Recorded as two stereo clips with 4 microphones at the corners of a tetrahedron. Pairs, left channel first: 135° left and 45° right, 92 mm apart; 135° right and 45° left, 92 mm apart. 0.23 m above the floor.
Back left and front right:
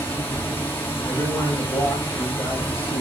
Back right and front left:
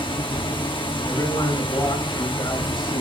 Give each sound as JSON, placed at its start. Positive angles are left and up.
{"t": 0.0, "sound": "running water", "azimuth_deg": -160, "distance_m": 2.0}
{"t": 1.1, "sound": "a man speaking", "azimuth_deg": -165, "distance_m": 4.0}